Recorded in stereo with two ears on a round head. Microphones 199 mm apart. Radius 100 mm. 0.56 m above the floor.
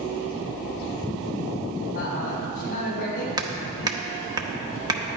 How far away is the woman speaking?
About 4 m.